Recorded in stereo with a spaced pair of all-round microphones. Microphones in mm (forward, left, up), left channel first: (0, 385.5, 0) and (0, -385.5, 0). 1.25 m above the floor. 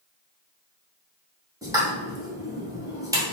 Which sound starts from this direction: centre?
A pop, at 1.6 s.